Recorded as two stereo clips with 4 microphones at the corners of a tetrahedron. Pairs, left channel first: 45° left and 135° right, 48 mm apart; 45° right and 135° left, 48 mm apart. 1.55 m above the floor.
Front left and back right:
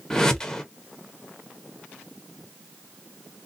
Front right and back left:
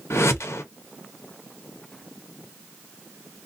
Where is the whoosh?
30° right, 0.7 m.